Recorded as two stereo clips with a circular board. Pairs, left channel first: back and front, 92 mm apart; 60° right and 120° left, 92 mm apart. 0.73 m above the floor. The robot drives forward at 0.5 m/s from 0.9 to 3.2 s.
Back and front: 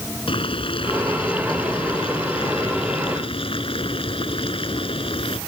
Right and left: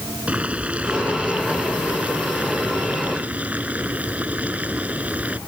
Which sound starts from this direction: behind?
Boiling, at 0.3 s.